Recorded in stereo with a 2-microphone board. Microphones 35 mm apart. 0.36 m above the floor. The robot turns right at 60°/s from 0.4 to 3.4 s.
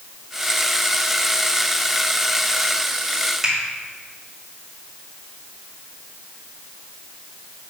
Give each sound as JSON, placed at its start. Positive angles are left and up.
{"t": 3.4, "sound": "a finger snap", "side_deg": -10, "distance_m": 1.9}